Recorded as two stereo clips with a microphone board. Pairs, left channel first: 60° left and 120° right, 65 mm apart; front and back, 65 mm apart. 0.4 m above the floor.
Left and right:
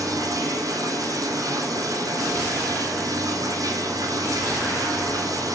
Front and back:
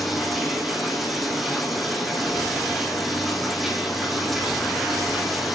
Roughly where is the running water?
Right.